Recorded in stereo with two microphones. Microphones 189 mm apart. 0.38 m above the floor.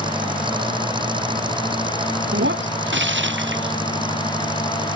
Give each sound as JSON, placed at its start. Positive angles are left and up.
{"t": 0.0, "sound": "an engine running", "side_deg": -25}
{"t": 2.3, "sound": "breaking glass", "side_deg": -80}